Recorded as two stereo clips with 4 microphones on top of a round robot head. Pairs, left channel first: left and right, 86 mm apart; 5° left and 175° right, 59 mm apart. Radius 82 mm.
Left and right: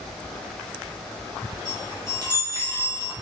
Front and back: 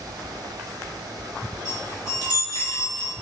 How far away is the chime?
About 1.0 m.